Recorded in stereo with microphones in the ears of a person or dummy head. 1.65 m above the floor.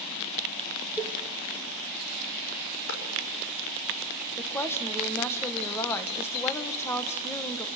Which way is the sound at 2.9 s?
85° left.